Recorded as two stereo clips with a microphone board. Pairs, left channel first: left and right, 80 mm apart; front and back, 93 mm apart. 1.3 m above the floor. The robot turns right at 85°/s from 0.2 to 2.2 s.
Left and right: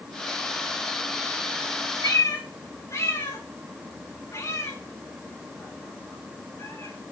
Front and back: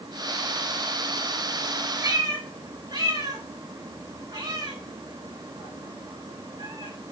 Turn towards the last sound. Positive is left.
turn(degrees=135)